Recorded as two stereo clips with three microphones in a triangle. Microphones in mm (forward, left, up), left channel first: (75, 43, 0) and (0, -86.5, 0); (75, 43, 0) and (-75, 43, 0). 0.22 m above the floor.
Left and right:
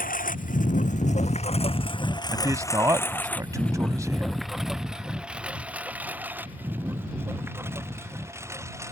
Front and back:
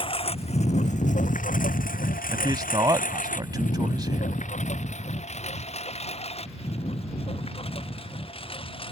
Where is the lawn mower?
50° left; by 8.9 s 50° right.